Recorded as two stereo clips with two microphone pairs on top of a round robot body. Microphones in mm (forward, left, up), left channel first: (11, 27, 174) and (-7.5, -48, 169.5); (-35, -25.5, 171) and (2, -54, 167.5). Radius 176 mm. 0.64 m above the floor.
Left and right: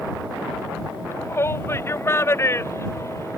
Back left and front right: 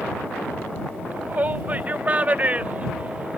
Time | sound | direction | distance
1.1 | a shout | 20° left | ?